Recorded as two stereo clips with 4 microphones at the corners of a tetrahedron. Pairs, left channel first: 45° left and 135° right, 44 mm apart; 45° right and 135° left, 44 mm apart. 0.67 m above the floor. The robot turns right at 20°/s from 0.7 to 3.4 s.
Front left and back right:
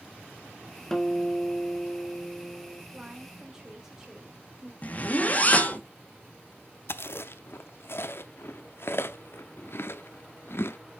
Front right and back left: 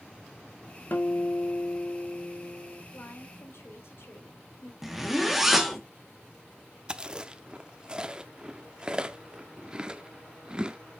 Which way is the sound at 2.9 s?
65° right.